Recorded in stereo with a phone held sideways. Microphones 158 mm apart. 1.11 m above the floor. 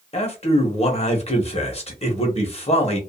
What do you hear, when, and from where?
0.1 s a man speaking: 40° left (ahead or behind), 1.0 m